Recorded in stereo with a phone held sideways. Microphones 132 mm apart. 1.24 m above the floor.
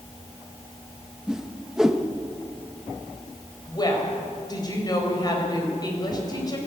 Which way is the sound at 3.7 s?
30° left (ahead or behind).